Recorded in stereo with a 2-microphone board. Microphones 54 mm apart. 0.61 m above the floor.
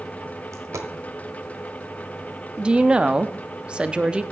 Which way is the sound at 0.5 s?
90° right.